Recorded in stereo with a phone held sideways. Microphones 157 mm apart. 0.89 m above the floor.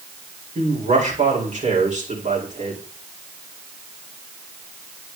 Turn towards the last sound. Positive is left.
turn(degrees=-60)  # may be behind; listen again after turning